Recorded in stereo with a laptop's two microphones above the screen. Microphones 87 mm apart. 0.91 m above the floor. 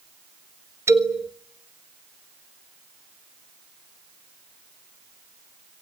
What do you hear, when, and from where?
0.9 s a man speaking: 30° right (ahead or behind), 1.3 m